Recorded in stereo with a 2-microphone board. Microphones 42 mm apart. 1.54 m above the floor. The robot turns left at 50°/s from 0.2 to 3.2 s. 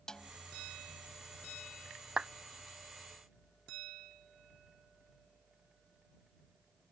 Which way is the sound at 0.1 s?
20° left (ahead or behind).